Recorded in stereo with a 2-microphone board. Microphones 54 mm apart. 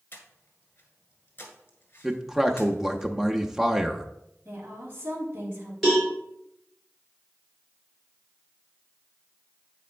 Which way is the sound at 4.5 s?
40° right (ahead or behind).